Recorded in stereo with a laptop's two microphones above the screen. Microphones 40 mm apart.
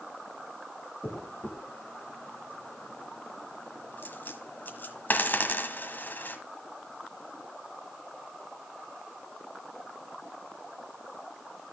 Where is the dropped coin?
50° left (ahead or behind), 1.5 m.